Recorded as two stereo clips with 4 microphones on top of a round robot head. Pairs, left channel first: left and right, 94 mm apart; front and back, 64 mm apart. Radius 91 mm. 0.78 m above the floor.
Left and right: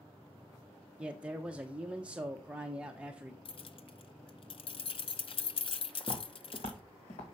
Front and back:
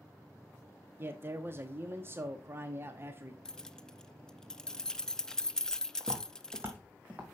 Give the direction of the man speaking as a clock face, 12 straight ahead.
5 o'clock.